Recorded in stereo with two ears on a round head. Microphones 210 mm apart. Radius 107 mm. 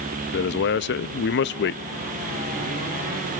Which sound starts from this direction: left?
A man speaking, at 0.3 s.